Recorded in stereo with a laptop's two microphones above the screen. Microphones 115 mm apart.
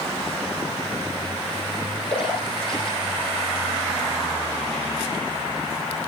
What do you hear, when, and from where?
2.1 s a splash: 55° left (ahead or behind), 5.5 m